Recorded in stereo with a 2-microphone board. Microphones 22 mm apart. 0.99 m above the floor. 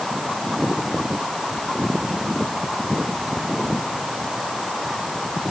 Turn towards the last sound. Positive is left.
No sound to turn to.